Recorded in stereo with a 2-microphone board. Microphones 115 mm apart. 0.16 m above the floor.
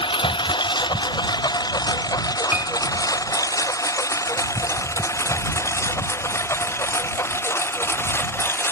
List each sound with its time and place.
0.0 s a lawn mower: 40° left (ahead or behind); by 8.7 s 20° left (ahead or behind)
2.5 s a piano: 10° right (ahead or behind)